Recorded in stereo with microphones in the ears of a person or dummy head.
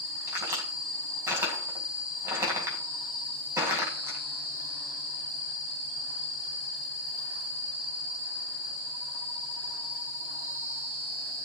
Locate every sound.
0.3 s a crack: 15° right (ahead or behind), 5 m